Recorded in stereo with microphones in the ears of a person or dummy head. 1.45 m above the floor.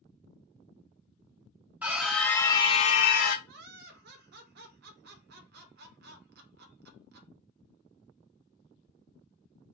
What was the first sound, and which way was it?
A scream, 15° right (ahead or behind).